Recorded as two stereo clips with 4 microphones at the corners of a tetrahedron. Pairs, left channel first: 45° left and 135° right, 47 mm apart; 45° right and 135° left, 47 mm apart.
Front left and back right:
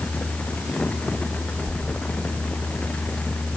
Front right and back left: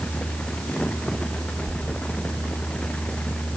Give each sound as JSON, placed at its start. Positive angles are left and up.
{"t": 1.7, "sound": "a squeak", "azimuth_deg": 65, "distance_m": 7.0}